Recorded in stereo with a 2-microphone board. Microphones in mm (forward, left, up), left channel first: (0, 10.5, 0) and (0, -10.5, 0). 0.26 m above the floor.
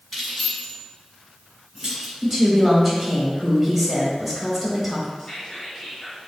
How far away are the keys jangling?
About 1.6 m.